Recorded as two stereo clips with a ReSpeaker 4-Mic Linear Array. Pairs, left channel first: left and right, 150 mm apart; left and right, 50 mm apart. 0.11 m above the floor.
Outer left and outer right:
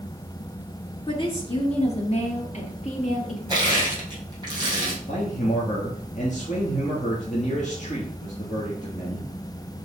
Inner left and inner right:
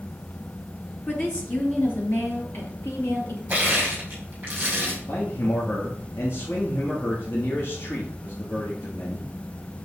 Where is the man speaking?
55° left (ahead or behind), 2.5 m.